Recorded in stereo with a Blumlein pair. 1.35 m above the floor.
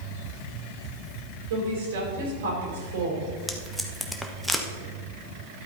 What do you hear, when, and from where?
1.5 s a woman speaking: 60° right, 5 m
3.5 s tape being pulled: straight ahead, 1.3 m